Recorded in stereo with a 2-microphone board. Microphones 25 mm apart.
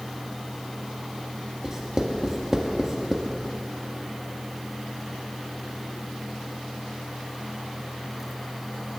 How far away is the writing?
About 1.6 m.